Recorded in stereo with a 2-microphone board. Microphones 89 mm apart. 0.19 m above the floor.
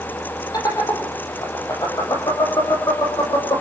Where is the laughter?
45° left (ahead or behind), 7.5 m.